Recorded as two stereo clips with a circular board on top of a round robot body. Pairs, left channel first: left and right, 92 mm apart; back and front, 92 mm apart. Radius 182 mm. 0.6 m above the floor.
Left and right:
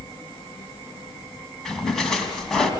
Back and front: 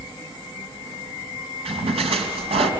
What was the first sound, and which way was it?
A splash, 5° left.